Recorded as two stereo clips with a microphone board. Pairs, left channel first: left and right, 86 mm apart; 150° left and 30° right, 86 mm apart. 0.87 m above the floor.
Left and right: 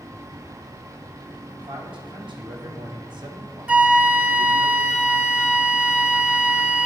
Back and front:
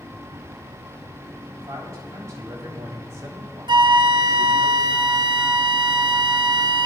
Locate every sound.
1.6 s a man speaking: 80° right, 5 m; by 4.7 s 85° right, 1.7 m
3.7 s a flute: 15° right, 0.9 m